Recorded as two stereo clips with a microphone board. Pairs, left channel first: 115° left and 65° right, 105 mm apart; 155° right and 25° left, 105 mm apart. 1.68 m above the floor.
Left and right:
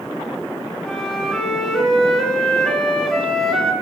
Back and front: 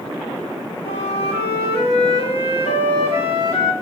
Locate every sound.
0.8 s a flute: 165° right, 2.0 m